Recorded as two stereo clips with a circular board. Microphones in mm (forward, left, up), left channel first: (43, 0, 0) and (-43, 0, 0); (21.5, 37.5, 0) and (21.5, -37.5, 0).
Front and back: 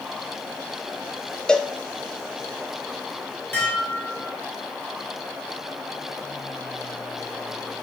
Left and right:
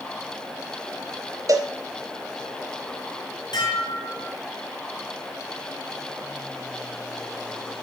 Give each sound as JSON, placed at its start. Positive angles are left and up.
{"t": 1.5, "sound": "a cowbell", "azimuth_deg": -75, "distance_m": 0.5}
{"t": 3.5, "sound": "dishes clattering", "azimuth_deg": 70, "distance_m": 3.0}